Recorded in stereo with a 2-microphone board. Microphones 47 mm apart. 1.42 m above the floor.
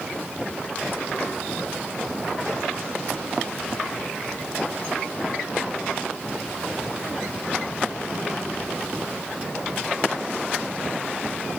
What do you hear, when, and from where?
Only background noise.